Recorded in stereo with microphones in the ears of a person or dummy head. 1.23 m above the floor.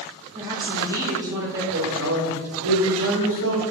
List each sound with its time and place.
0.3 s a woman speaking: 10° right (ahead or behind), 2.5 m
1.7 s a man speaking: 70° right (ahead or behind), 1.9 m